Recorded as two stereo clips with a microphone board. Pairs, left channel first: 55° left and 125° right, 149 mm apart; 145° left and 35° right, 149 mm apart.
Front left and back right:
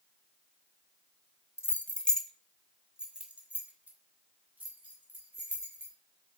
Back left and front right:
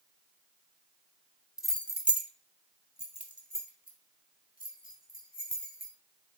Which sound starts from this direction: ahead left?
Keys jangling, at 1.6 s.